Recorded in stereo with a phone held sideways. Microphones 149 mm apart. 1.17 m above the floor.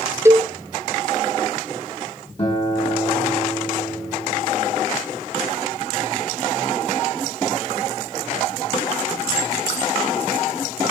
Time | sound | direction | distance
0.2 | a cowbell | 20° right (ahead or behind) | 1.7 m
2.4 | a guitar | 40° left (ahead or behind) | 7.5 m